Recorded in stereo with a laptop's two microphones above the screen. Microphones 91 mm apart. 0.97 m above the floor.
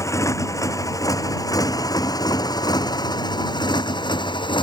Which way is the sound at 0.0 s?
35° left (ahead or behind).